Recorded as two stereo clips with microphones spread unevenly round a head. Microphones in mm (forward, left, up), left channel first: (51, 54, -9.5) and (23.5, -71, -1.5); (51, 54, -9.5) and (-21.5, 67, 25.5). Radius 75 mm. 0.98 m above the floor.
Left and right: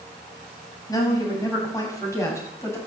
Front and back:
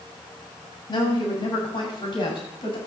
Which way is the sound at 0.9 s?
15° left.